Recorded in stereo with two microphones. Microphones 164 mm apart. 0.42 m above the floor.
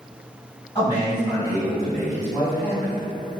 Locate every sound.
0.8 s a man speaking: 25° left (ahead or behind), 1.5 m; by 3.0 s 10° left (ahead or behind), 1.6 m